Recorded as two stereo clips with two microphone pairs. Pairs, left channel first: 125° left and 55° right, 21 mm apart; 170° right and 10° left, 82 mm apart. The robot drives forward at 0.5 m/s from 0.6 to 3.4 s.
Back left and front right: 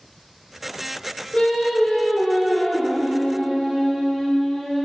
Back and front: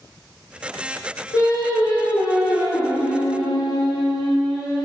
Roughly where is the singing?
Behind left.